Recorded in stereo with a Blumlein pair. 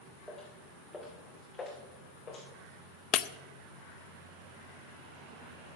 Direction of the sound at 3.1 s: 35° left.